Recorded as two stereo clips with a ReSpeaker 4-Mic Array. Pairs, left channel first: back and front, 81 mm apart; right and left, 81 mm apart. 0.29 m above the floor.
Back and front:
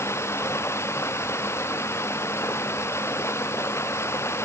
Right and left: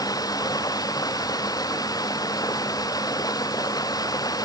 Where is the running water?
125° right.